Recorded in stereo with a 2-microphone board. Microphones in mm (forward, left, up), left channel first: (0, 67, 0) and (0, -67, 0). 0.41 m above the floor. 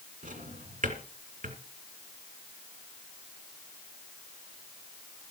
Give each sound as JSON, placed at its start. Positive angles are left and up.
{"t": 0.2, "sound": "a drawer", "side_deg": -80, "distance_m": 3.0}